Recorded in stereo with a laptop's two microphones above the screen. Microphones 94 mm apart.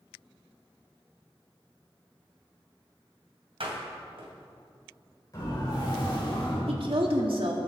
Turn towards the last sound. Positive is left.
turn(degrees=-70)  # may be behind; listen again after turning